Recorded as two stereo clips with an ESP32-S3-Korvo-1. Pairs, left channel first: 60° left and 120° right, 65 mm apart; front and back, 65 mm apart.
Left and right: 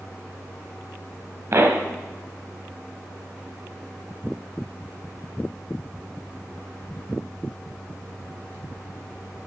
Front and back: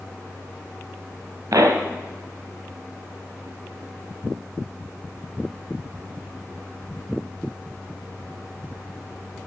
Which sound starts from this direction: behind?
A pop, at 1.5 s.